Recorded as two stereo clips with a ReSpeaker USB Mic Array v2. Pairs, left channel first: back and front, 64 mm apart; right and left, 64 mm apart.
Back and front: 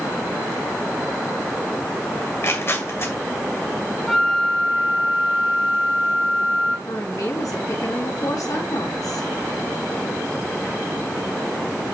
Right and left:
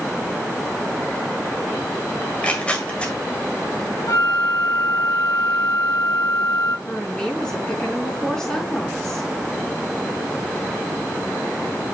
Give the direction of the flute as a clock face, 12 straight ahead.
3 o'clock.